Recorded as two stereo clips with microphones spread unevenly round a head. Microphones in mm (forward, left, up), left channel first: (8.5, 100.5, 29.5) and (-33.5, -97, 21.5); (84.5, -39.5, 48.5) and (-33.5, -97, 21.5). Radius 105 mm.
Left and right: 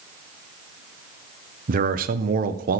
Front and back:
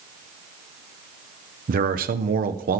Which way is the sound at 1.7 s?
150° right.